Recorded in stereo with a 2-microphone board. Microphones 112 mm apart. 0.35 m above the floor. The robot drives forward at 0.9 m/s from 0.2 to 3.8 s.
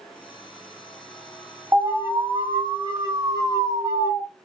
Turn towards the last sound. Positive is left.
turn(degrees=-30)  # may be behind; listen again after turning